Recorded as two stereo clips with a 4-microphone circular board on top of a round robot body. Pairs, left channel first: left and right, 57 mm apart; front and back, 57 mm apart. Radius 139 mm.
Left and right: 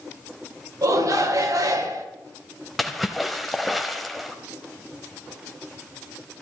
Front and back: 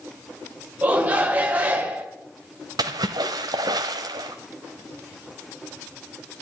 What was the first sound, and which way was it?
A shout, 115° right.